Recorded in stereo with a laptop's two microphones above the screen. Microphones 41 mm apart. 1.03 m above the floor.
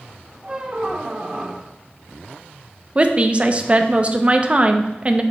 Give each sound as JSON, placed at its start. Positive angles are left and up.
{"t": 0.4, "sound": "a squeak", "side_deg": -25, "distance_m": 0.6}
{"t": 3.0, "sound": "a woman speaking", "side_deg": -30, "distance_m": 0.7}